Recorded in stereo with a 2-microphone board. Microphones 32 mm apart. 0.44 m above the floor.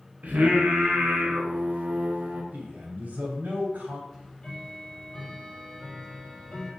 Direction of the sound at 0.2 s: 55° right (ahead or behind).